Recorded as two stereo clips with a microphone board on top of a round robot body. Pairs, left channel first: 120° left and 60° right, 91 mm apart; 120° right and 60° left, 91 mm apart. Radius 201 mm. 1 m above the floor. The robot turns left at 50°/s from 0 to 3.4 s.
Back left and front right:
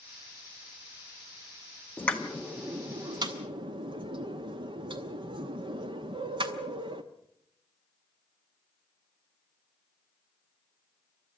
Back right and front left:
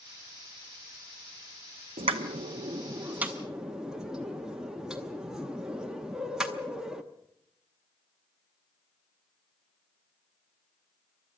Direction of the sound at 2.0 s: 50° left.